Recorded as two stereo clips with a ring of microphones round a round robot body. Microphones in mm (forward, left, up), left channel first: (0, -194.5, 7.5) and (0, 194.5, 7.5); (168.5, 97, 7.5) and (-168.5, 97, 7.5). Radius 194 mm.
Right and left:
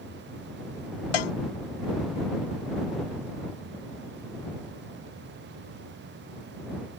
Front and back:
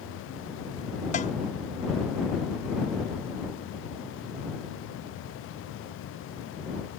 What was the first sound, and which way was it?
A cowbell, 75° right.